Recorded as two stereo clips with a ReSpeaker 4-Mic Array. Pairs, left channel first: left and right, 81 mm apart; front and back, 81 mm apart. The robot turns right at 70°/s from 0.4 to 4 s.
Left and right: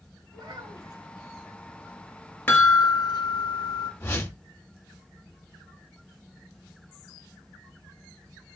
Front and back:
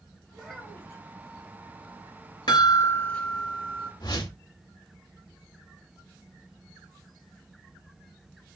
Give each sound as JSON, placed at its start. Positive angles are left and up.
{"t": 0.3, "sound": "a child speaking", "azimuth_deg": -95, "distance_m": 1.2}
{"t": 2.5, "sound": "a chime", "azimuth_deg": 25, "distance_m": 1.9}
{"t": 4.0, "sound": "a whoosh", "azimuth_deg": 30, "distance_m": 1.1}